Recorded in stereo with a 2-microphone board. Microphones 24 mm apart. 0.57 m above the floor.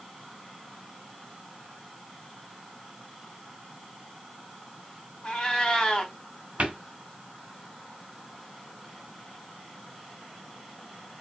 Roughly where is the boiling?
No boiling in this recording.